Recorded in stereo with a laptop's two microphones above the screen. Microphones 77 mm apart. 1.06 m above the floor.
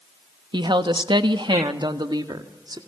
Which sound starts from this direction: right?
A woman speaking, at 0.5 s.